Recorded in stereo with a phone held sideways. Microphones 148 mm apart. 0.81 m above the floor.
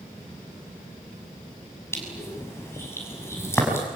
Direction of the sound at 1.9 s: 15° left (ahead or behind).